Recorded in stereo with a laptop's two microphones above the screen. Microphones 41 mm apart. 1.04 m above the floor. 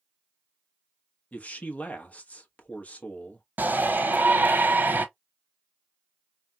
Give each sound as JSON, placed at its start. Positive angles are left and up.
{"t": 1.3, "sound": "a man speaking", "side_deg": 40, "distance_m": 1.1}
{"t": 3.6, "sound": "a shout", "side_deg": -50, "distance_m": 0.9}